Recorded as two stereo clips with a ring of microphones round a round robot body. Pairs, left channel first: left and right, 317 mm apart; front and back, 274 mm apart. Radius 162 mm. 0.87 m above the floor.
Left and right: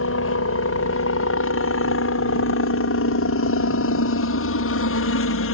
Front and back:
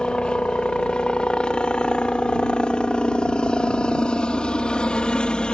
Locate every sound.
0.0 s a helicopter: 85° left